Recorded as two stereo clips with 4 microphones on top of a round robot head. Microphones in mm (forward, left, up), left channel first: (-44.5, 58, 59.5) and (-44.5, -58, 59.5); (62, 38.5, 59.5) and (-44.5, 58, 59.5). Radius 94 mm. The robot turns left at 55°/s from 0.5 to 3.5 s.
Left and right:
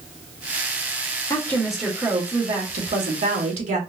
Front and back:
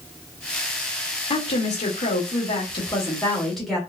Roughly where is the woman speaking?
Ahead left.